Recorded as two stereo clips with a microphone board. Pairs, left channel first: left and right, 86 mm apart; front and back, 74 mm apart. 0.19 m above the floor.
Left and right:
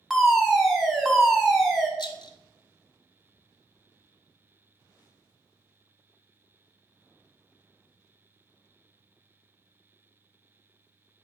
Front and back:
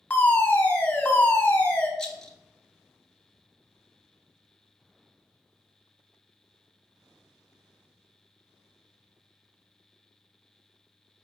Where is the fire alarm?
10° right, 2.0 m.